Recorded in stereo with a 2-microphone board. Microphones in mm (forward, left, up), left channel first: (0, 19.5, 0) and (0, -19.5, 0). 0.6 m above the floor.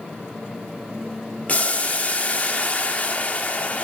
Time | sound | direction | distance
1.5 | boiling | 35° left (ahead or behind) | 0.6 m